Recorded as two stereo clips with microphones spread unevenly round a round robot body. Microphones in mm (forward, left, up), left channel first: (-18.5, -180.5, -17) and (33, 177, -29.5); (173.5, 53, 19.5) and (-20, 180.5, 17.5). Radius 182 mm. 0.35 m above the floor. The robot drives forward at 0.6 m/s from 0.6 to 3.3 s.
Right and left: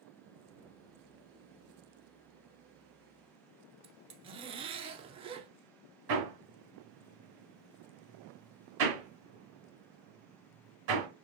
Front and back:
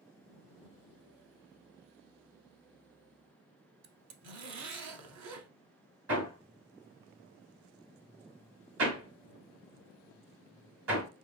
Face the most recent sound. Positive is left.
turn(degrees=135)